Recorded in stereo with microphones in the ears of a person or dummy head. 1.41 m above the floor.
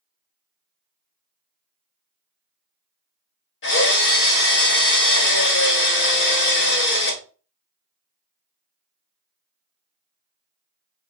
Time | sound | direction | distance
3.6 | a drill | 70° left (ahead or behind) | 1.6 m